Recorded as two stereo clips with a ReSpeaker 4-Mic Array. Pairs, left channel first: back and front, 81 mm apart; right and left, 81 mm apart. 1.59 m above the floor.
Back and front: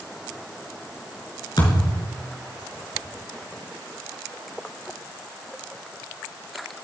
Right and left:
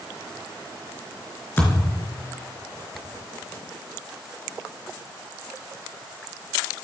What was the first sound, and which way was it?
A thud, 150° right.